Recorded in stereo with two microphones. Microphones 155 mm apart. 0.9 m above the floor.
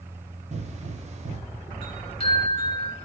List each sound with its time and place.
0.5 s a pop: 45° right (ahead or behind), 0.7 m
1.8 s a chime: 35° left (ahead or behind), 2.5 m